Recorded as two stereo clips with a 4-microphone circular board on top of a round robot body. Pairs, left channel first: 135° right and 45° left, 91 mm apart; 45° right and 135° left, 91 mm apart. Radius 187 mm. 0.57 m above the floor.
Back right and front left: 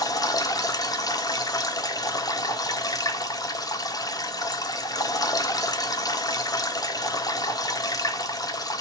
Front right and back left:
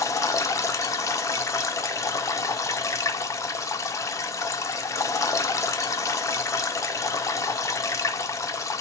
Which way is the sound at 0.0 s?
95° right.